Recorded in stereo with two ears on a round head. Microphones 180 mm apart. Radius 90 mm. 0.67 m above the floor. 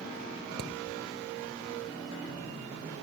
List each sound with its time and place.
0.6 s hammering: 50° right (ahead or behind)